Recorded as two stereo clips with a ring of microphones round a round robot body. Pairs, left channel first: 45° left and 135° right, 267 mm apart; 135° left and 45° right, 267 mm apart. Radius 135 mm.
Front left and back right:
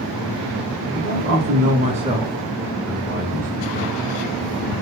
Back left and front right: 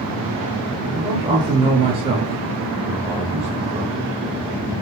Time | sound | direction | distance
0.9 | a man speaking | 120° right | 1.1 m